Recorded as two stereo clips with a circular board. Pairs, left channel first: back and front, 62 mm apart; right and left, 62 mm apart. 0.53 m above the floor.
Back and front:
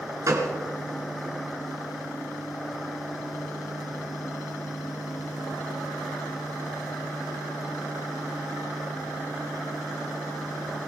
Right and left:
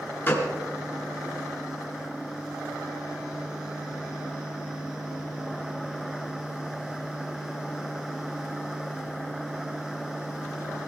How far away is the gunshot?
About 2.5 m.